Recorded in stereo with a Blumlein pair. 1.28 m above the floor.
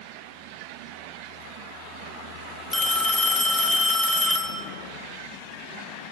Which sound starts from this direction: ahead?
A phone ringing, at 2.7 s.